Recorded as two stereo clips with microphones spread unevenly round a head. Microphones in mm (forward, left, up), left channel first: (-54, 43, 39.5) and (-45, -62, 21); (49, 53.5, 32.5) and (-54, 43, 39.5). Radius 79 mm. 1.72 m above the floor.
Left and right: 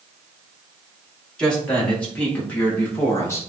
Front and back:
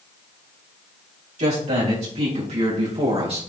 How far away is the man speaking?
About 4 m.